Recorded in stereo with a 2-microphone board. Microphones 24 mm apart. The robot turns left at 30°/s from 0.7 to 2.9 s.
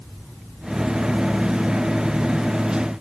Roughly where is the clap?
I don't hear a clap.